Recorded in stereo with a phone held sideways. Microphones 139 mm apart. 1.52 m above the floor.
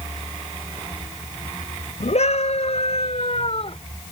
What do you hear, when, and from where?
2.0 s a scream: 55° left (ahead or behind); by 3.8 s 45° left (ahead or behind)